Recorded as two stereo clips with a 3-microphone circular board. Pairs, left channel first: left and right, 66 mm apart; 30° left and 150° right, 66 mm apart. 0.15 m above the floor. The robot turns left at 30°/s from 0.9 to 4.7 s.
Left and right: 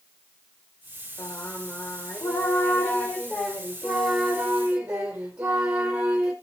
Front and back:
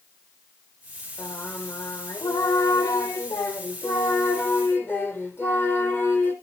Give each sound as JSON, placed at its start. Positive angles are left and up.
{"t": 1.2, "sound": "singing", "azimuth_deg": 85, "distance_m": 2.0}